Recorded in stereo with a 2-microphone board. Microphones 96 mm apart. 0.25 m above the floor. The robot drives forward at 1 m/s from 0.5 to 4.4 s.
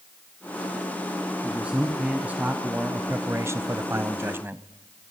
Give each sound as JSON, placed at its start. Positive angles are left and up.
{"t": 1.4, "sound": "a man speaking", "side_deg": -10, "distance_m": 2.5}